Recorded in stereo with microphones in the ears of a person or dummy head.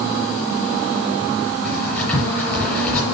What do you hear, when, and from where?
1.6 s writing: 10° left (ahead or behind), 6 m